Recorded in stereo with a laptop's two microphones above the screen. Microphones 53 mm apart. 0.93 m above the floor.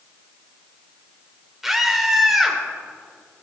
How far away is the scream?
About 3.5 m.